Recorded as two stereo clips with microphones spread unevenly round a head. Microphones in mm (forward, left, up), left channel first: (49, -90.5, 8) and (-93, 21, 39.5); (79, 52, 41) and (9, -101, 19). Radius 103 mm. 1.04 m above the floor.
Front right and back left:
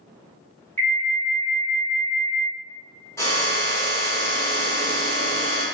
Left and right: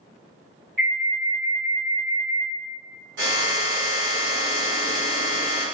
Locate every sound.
0.8 s an alarm: 115° right, 1.7 m
3.2 s a drill: 115° right, 1.3 m